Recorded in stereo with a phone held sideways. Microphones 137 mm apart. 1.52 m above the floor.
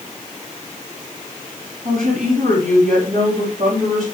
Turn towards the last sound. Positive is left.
turn(degrees=-75)  # may be behind; listen again after turning